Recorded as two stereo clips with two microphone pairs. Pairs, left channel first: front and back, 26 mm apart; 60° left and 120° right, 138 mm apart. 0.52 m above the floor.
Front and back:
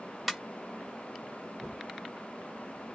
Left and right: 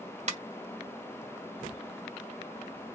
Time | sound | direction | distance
0.3 | a ringtone | 95° right | 1.4 m